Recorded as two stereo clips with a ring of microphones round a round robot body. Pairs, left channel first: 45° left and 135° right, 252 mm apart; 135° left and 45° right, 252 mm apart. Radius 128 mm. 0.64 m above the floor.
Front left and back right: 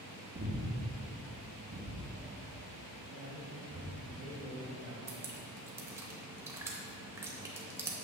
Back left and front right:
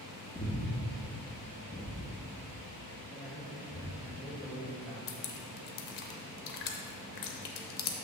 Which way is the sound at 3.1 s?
140° right.